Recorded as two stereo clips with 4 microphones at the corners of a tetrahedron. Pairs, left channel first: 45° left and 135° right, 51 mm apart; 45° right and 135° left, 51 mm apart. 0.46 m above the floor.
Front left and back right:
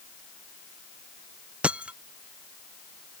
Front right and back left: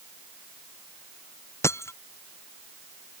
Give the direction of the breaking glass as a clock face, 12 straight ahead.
2 o'clock.